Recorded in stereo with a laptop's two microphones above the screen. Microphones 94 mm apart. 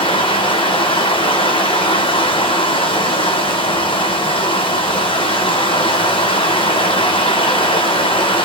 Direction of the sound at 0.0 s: 70° left (ahead or behind).